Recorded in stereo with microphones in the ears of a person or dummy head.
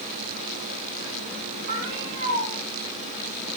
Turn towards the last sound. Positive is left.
turn(degrees=-60)  # may be behind; listen again after turning